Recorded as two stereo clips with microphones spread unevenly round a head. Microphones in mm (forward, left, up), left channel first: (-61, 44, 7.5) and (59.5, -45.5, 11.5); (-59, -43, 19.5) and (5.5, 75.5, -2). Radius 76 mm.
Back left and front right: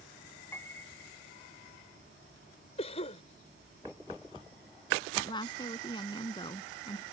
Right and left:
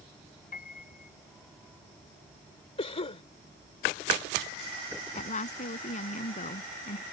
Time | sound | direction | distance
0.5 | a piano | 140° right | ?
2.8 | a cough | 165° right | ?
5.1 | a woman speaking | 155° right | ?